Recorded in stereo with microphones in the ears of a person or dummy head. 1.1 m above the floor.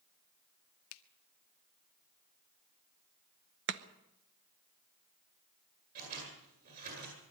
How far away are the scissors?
About 10 m.